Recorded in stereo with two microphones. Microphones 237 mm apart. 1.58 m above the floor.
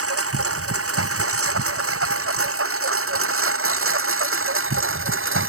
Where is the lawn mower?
70° right (ahead or behind); by 5.5 s 60° right (ahead or behind).